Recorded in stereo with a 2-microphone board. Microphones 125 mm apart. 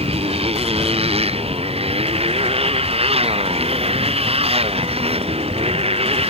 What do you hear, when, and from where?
0.0 s a motorcycle: 55° right (ahead or behind)